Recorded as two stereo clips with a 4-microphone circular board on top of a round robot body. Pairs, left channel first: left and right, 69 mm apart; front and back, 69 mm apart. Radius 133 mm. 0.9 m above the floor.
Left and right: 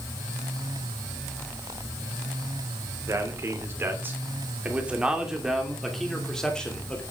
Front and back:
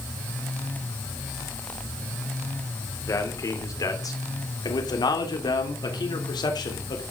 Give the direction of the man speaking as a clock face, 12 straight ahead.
1 o'clock.